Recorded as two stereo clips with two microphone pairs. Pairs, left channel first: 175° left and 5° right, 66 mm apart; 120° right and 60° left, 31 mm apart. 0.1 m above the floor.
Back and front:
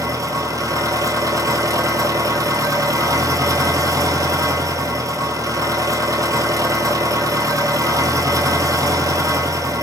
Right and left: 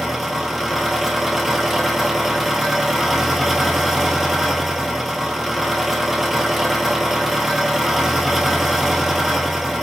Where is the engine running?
25° right, 0.9 m.